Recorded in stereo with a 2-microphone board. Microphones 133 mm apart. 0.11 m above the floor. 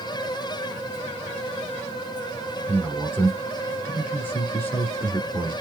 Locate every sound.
2.7 s a man speaking: 15° left (ahead or behind), 1.7 m